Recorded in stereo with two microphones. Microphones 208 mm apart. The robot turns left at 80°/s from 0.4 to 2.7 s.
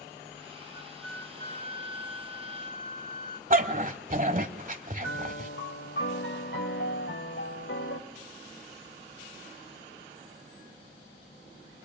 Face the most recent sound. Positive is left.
turn(degrees=75)  # may be behind; listen again after turning